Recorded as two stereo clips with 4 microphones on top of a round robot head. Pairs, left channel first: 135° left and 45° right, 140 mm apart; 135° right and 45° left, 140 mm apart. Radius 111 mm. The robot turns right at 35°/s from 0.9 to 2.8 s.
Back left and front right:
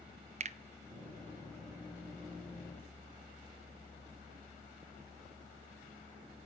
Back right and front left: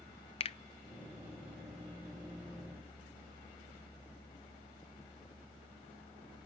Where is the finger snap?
85° right, 0.6 m.